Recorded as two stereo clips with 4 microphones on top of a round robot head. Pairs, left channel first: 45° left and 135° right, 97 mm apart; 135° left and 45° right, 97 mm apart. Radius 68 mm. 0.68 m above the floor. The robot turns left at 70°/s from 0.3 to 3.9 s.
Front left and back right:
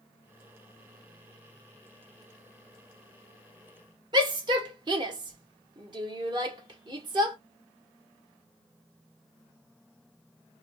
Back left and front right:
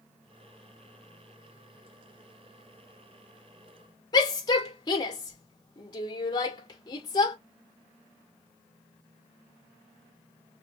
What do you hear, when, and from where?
4.1 s a shout: 175° right, 2 m